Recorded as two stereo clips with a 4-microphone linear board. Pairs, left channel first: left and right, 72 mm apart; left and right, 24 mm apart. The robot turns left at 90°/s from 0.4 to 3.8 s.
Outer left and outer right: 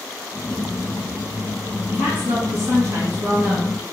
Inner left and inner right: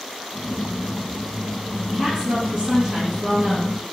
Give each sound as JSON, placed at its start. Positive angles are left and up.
{"t": 1.9, "sound": "a woman speaking", "azimuth_deg": -35, "distance_m": 1.8}